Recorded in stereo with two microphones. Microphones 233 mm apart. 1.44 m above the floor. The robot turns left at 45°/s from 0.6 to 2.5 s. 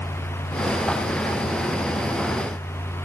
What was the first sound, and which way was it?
Only background noise.